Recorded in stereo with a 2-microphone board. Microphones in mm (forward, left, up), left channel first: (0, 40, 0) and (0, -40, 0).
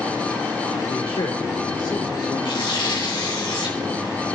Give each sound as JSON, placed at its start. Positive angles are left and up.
{"t": 0.9, "sound": "a man speaking", "side_deg": 80, "distance_m": 2.5}
{"t": 2.5, "sound": "tearing paper", "side_deg": 75, "distance_m": 3.0}